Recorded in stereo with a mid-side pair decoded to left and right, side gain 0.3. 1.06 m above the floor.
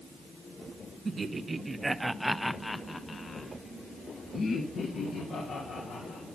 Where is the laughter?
55° right, 1.2 m; by 6.3 s 80° left, 3 m.